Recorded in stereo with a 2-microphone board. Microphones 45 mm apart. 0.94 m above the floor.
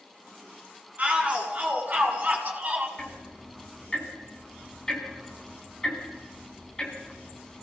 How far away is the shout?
About 8.5 m.